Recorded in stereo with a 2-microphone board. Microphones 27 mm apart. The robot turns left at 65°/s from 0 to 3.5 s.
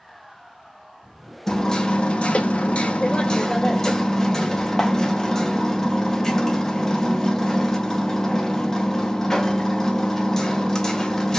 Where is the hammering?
160° left, 0.5 m; by 11.4 s 25° left, 0.5 m.